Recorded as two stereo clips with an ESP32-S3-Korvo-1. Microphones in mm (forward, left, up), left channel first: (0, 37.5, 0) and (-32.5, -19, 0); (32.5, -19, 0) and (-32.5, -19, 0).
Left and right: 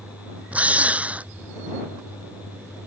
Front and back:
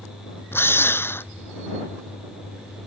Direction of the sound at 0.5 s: 50° right.